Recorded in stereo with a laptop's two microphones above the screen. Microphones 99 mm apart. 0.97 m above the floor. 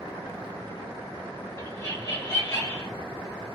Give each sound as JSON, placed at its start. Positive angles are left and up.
{"t": 1.6, "sound": "laughter", "side_deg": 30, "distance_m": 2.0}